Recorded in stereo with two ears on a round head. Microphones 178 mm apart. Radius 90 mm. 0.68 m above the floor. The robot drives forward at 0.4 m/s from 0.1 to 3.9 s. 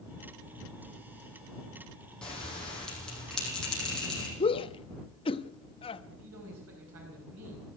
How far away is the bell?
About 5 m.